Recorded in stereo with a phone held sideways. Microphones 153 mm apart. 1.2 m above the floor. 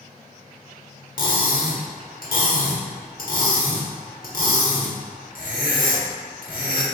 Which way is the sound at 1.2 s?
65° left (ahead or behind).